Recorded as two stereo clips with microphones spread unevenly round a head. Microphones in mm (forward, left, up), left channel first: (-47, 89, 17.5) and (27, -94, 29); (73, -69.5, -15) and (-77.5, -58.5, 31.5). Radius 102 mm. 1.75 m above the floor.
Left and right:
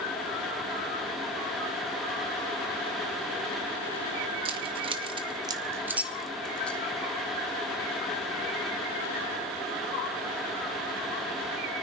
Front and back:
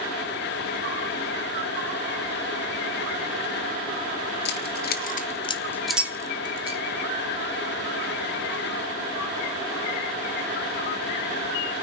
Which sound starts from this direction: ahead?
Keys jangling, at 4.5 s.